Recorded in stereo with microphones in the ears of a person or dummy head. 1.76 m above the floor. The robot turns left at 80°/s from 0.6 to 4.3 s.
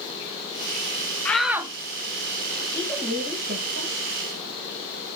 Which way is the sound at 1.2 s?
15° left.